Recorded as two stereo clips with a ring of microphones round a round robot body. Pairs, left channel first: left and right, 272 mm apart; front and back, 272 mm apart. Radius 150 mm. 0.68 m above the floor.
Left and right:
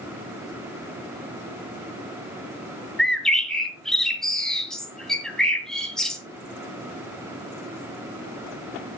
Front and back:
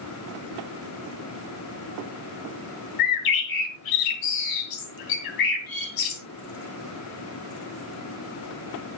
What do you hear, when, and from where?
3.0 s a bird: straight ahead, 2.5 m